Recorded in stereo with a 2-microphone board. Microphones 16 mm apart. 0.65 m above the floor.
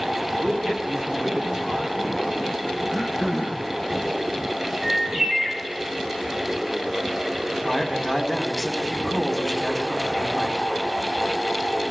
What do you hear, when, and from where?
0.4 s a man speaking: 80° right, 6 m
2.9 s throat clearing: 30° right (ahead or behind), 3 m
4.8 s a bird: 80° right, 6.5 m
7.5 s a man speaking: centre (ahead or behind), 3.5 m